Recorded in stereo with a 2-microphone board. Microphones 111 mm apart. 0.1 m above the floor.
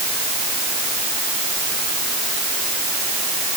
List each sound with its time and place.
Only background noise.